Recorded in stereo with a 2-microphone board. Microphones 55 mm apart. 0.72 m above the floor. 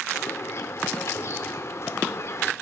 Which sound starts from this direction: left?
A bird, at 0.1 s.